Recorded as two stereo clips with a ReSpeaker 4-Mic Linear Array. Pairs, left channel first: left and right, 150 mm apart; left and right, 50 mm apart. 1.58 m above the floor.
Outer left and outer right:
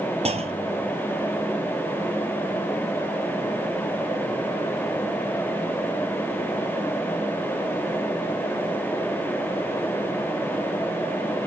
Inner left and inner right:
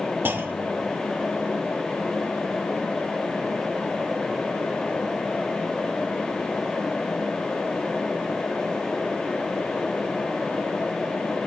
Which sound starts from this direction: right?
A clunk, at 0.2 s.